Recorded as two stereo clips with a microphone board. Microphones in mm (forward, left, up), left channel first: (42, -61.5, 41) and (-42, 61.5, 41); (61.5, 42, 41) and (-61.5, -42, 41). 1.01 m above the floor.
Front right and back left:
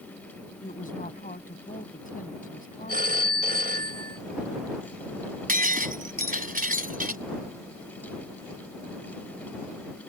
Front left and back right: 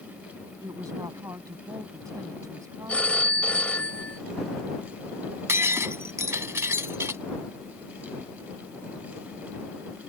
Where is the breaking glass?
140° left.